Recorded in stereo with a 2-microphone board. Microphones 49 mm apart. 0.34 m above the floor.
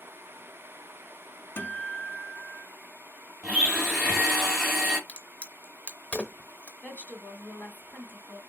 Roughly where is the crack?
Left.